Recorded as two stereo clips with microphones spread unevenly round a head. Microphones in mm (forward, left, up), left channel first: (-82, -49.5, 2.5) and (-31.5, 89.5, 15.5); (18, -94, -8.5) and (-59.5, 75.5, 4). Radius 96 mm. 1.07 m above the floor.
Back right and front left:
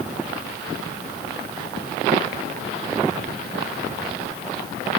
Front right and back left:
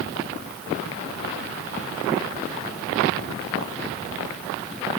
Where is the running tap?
No running tap in this recording.